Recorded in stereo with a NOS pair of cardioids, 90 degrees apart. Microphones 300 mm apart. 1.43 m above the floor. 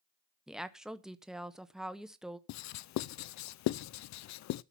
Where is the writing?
70° left, 0.5 m.